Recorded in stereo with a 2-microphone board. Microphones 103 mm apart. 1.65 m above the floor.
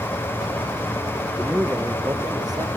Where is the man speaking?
5° right (ahead or behind), 0.9 m; by 2.7 s 40° right (ahead or behind), 1.5 m.